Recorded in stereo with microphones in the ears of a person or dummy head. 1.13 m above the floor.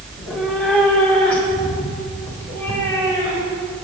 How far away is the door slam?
No door slam in this recording.